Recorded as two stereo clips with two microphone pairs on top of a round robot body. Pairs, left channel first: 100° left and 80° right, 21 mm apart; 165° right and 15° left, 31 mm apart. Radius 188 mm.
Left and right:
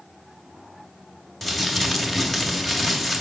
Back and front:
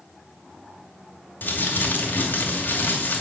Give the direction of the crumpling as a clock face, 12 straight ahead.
6 o'clock.